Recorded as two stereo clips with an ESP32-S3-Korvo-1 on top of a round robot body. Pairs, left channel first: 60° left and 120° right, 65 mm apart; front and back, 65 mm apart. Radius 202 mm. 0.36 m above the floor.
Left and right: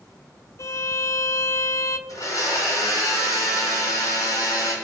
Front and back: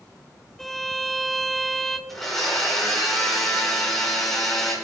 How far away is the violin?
About 1.1 m.